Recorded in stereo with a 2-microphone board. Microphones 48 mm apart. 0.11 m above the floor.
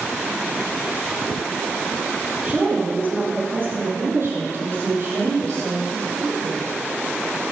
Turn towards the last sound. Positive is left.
turn(degrees=-75)  # may be behind; listen again after turning